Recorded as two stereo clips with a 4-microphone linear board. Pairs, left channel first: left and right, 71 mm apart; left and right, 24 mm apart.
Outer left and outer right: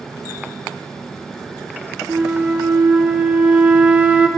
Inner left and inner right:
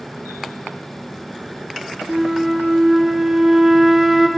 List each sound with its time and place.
2.1 s a flute: 20° right (ahead or behind), 0.6 m